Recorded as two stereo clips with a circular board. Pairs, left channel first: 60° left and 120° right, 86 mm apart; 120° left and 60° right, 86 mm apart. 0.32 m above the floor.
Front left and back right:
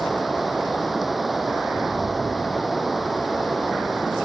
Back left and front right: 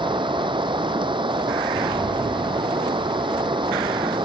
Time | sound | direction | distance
0.0 | running water | 30° right | ?